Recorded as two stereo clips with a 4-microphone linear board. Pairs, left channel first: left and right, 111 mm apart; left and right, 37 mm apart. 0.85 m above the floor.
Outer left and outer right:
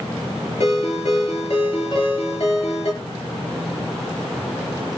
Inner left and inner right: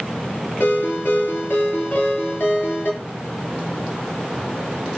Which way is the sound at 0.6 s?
60° left (ahead or behind).